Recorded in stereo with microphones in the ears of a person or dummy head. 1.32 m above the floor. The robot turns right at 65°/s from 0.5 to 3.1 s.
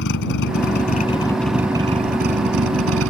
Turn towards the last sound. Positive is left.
turn(degrees=-75)